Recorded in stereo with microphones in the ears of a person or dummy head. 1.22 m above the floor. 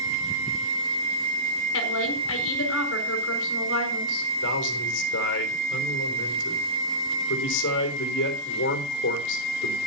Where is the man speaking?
70° left (ahead or behind), 3.5 m.